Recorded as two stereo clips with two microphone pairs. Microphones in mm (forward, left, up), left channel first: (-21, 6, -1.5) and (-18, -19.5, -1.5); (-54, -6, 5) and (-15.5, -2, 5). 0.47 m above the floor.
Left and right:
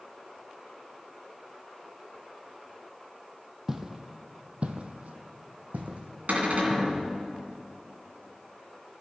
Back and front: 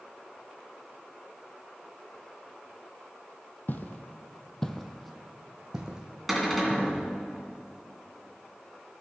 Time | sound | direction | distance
3.7 | footsteps | 155° right | 0.8 m
6.3 | a cupboard door | 85° right | 2 m